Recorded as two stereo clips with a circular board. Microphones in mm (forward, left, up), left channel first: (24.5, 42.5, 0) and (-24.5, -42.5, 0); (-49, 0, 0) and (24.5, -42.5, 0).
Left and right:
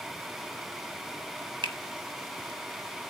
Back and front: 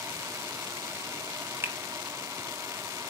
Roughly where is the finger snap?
Right.